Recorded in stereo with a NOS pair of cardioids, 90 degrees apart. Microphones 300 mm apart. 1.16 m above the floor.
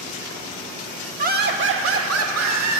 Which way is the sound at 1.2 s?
25° right.